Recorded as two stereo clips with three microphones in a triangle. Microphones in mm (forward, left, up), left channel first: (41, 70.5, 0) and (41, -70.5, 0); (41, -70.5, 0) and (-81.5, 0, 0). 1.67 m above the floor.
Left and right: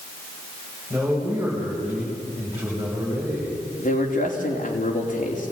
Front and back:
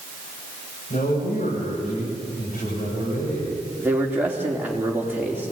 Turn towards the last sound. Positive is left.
turn(degrees=75)